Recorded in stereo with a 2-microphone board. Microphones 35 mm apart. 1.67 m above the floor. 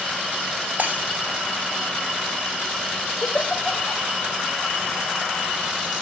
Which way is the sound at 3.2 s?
65° left (ahead or behind).